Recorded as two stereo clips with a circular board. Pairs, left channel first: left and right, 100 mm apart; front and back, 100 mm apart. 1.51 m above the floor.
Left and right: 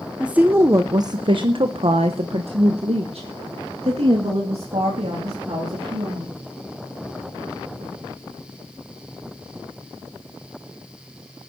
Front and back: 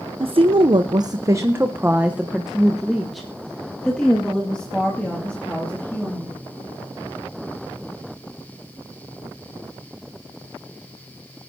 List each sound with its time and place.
0.2 s a woman speaking: 170° right, 0.7 m; by 6.3 s 75° right, 3 m